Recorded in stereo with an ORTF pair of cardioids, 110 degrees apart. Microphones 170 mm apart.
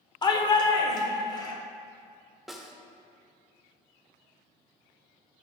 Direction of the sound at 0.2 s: 25° left.